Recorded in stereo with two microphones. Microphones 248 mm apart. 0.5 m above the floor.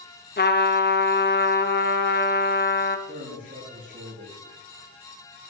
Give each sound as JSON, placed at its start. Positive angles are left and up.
{"t": 0.4, "sound": "a trumpet", "side_deg": 40, "distance_m": 0.8}
{"t": 3.1, "sound": "a man speaking", "side_deg": -35, "distance_m": 6.5}